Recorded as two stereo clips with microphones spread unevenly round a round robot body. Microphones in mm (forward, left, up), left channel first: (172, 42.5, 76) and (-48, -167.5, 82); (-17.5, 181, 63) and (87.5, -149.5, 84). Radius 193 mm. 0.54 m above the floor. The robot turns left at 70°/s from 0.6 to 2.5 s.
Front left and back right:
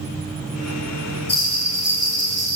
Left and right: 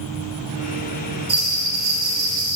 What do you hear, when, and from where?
1.3 s a bell: 10° right, 6 m; by 2.6 s 95° right, 6 m